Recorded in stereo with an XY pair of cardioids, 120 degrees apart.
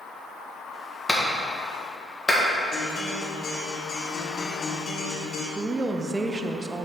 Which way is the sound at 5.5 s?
20° right.